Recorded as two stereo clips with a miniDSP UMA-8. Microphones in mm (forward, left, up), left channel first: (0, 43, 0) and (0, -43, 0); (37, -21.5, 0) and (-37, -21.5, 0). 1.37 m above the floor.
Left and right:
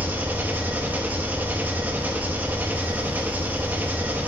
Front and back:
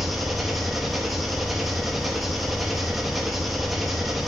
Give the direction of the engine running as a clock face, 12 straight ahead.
3 o'clock.